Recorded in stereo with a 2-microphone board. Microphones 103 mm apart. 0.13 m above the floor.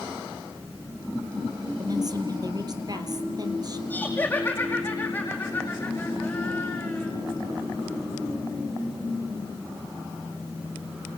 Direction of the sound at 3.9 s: 15° left (ahead or behind).